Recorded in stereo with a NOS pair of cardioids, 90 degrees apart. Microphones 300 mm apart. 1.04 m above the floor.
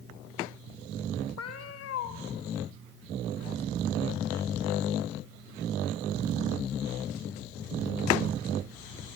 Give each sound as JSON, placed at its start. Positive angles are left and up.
{"t": 1.4, "sound": "a cat meowing", "azimuth_deg": 55, "distance_m": 1.8}